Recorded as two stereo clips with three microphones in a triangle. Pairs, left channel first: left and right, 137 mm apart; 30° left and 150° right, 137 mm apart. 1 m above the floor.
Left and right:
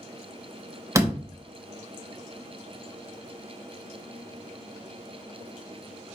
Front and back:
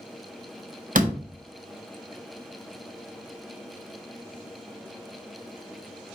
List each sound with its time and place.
0.9 s a door slam: 160° right, 0.9 m